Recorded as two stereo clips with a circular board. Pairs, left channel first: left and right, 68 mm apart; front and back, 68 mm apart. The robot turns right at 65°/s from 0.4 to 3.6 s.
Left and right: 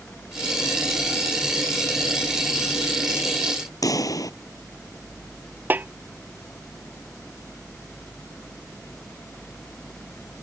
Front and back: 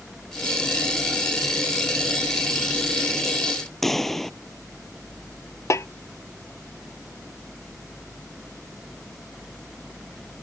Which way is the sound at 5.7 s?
35° right.